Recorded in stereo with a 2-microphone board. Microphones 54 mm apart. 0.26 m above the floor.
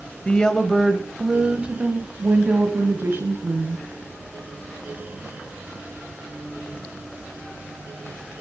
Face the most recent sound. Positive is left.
turn(degrees=-50)  # may be behind; listen again after turning